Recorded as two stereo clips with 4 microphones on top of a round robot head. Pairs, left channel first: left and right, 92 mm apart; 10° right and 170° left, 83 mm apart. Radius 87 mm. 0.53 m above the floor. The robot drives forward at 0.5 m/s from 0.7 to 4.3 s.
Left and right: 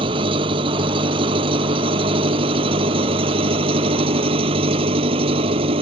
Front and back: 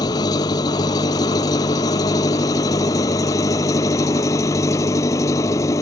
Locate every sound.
0.0 s an engine running: 55° right; by 5.8 s 65° right